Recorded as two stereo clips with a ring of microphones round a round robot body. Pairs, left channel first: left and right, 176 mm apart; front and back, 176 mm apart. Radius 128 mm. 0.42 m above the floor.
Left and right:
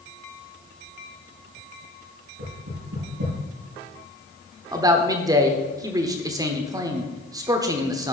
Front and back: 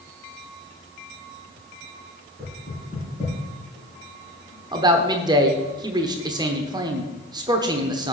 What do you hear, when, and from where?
2.4 s knocking: 100° right, 5 m
4.7 s a man speaking: 140° right, 0.9 m